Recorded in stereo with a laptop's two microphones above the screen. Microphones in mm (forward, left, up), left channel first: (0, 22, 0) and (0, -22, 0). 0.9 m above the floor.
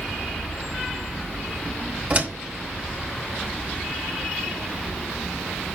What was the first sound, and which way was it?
A door slam, 35° right (ahead or behind).